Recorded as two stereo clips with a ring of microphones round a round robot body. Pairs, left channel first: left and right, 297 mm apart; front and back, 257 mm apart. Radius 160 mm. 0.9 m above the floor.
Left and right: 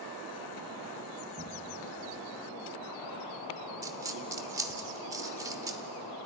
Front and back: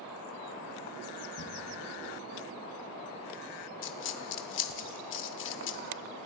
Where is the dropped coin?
15° right, 0.6 m.